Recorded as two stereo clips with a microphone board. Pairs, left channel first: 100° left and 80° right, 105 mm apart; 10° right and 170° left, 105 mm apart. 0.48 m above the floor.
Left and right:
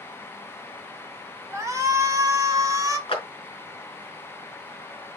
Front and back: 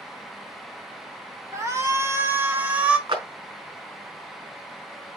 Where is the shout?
135° right, 2 m; by 3.0 s 115° right, 1.6 m.